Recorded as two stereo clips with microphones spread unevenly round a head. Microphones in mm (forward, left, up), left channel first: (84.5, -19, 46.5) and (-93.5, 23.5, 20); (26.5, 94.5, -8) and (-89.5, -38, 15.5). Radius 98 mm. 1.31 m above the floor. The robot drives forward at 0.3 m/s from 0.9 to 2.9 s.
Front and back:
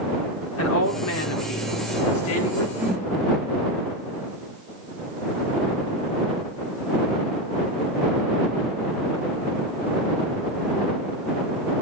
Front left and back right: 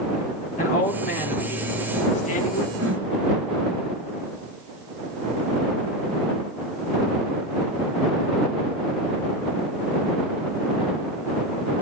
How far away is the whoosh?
About 5.5 m.